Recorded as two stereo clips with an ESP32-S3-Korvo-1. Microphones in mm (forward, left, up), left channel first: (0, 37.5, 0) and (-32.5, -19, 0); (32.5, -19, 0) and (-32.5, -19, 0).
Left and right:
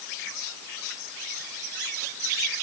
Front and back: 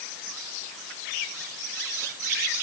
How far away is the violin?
I don't hear a violin.